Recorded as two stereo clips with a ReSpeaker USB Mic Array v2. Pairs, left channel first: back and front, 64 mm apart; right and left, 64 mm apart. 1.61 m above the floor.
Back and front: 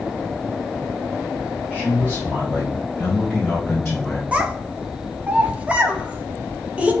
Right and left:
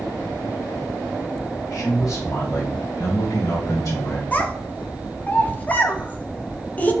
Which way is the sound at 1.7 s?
65° right.